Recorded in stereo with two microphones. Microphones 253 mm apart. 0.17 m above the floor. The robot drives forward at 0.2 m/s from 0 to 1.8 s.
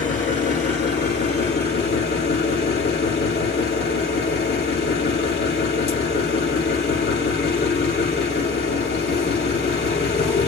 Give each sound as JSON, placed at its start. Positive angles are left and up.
{"t": 0.0, "sound": "an engine running", "side_deg": 50, "distance_m": 1.2}